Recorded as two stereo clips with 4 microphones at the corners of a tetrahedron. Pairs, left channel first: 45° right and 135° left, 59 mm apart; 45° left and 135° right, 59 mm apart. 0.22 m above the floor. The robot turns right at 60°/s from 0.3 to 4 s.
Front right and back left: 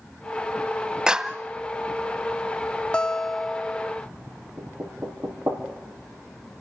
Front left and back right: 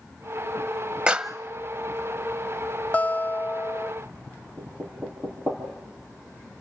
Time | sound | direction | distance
1.1 | a clap | 175° left | 0.8 m
2.9 | a guitar | 15° left | 0.6 m
4.6 | knocking | 170° left | 5 m